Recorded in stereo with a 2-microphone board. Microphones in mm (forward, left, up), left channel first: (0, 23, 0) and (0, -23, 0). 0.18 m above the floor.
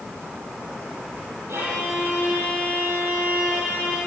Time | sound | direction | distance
1.5 | a violin | 75° right (ahead or behind) | 6.5 m